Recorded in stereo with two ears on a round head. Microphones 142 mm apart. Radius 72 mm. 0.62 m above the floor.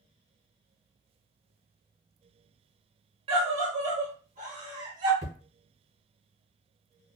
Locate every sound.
3.3 s a scream: 40° right (ahead or behind), 1.5 m; by 5.1 s 55° right (ahead or behind), 1.8 m
5.2 s hammering: 60° right (ahead or behind), 1.5 m